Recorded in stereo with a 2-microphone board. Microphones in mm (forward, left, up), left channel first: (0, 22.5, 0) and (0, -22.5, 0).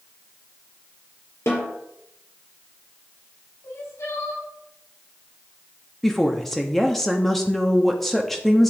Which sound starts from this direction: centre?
A woman speaking, at 6.0 s.